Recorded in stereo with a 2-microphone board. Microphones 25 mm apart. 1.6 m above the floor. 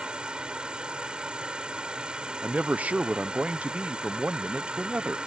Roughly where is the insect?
Right.